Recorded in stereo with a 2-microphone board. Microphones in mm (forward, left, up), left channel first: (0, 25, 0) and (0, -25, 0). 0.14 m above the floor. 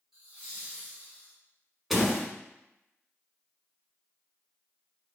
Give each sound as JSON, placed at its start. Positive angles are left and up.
{"t": 0.1, "sound": "laughter", "side_deg": -10, "distance_m": 1.5}
{"t": 1.9, "sound": "a door slam", "side_deg": -5, "distance_m": 0.8}